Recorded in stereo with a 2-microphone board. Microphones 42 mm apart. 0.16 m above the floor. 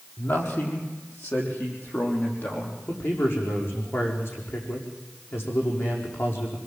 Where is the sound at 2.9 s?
75° left (ahead or behind), 7 m.